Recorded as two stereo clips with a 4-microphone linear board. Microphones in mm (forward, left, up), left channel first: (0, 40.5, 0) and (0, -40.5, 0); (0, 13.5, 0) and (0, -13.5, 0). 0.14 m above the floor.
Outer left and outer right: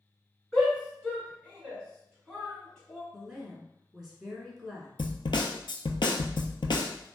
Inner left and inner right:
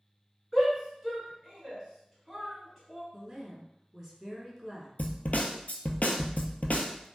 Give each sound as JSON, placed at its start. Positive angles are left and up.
{"t": 0.5, "sound": "a shout", "side_deg": 10, "distance_m": 1.5}
{"t": 3.1, "sound": "a woman speaking", "side_deg": 0, "distance_m": 1.2}
{"t": 5.0, "sound": "a snare drum", "side_deg": 80, "distance_m": 0.5}